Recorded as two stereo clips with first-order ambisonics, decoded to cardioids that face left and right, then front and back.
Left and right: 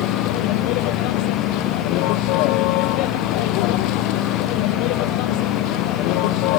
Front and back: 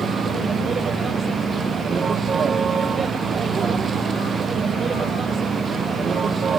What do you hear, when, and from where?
0.0 s a vehicle: 110° left